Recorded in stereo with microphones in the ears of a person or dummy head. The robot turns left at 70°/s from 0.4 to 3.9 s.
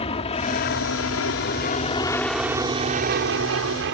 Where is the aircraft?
30° left (ahead or behind); by 4.0 s 60° right (ahead or behind).